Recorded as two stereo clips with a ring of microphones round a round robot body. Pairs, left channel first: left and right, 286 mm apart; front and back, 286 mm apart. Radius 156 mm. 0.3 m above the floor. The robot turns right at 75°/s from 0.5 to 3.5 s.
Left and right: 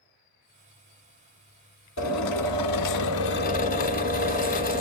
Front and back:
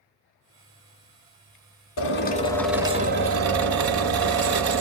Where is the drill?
40° left, 1.4 m; by 4.8 s 155° left, 1.4 m.